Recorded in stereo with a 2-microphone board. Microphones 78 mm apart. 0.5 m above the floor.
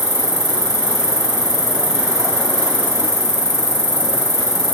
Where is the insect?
40° left (ahead or behind), 1.9 m.